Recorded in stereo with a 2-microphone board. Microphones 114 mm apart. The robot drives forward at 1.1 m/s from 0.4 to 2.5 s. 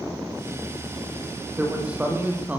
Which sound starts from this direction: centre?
A man speaking, at 1.6 s.